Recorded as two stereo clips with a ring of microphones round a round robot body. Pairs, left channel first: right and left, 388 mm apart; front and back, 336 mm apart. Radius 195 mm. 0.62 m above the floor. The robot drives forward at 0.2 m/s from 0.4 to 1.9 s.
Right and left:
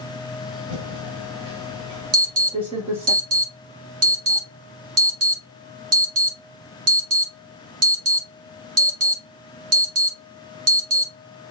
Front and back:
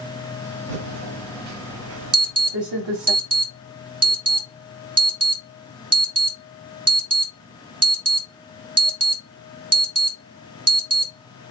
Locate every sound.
0.7 s typing on a keyboard: 165° left, 1.1 m; by 3.1 s 170° left, 1.4 m
2.1 s an alarm: 150° left, 2 m